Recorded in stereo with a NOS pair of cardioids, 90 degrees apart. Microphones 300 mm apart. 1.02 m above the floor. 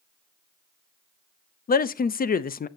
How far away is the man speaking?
About 0.6 m.